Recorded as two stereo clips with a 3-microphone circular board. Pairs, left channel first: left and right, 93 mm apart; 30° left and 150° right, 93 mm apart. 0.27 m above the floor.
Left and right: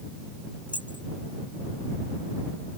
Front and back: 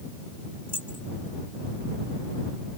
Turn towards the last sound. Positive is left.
turn(degrees=55)